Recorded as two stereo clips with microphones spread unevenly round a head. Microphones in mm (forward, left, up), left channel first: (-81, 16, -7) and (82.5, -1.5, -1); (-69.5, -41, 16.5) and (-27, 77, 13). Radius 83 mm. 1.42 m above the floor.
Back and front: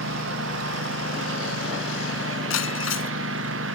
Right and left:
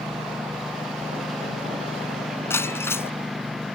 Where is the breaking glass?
Straight behind.